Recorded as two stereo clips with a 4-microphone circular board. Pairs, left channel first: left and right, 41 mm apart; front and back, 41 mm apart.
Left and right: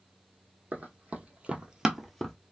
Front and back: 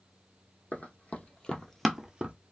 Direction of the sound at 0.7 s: 40° right.